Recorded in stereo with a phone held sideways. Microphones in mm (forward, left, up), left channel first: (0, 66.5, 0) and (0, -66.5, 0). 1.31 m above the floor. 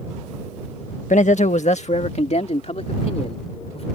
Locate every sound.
1.1 s a man speaking: 70° left (ahead or behind); by 3.9 s 50° left (ahead or behind)